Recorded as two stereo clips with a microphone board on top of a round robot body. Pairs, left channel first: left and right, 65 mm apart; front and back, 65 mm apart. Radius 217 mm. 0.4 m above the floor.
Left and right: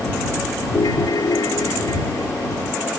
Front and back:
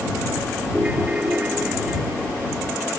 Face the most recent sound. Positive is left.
turn(degrees=110)